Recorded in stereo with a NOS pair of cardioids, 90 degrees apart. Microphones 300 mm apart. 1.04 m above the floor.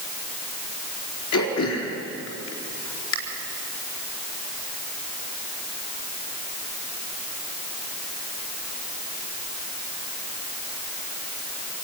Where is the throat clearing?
70° left, 4 m.